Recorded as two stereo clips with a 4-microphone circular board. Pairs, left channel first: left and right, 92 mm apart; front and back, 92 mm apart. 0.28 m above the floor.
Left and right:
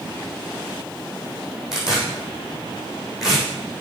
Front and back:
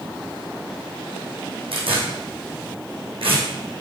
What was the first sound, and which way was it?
Tearing paper, 175° right.